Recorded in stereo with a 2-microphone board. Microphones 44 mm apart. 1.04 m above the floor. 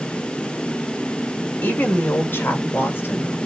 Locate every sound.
1.6 s a woman speaking: 45° left (ahead or behind), 4.5 m; by 3.4 s 70° left (ahead or behind), 3.5 m